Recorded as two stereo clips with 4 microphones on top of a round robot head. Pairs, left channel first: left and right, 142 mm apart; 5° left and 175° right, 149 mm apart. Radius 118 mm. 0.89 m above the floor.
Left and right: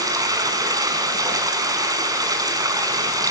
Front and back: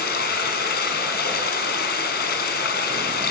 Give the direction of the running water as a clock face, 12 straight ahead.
1 o'clock.